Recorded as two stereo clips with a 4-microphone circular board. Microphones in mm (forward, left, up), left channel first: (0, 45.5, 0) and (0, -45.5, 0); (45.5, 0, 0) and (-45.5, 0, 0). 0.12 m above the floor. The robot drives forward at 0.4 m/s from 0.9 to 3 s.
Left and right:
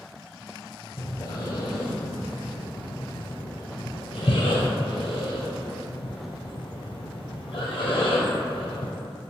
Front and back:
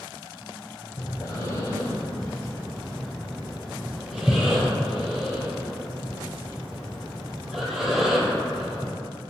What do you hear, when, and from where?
1.0 s breathing: 45° left, 1.1 m; by 8.9 s 95° left, 0.8 m